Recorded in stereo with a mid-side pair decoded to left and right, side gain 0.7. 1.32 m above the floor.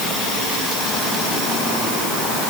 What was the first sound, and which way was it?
Only background noise.